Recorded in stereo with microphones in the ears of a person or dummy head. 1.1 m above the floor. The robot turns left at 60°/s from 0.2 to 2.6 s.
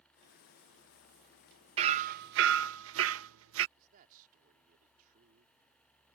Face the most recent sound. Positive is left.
turn(degrees=-45)  # may be behind; listen again after turning